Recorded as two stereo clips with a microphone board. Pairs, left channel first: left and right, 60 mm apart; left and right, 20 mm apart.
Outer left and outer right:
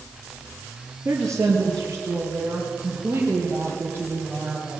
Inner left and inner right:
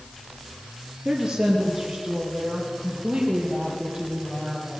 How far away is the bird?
No bird in this recording.